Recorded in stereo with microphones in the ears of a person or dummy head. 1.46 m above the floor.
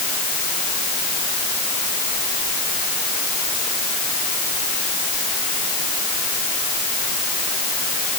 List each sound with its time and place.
Only background noise.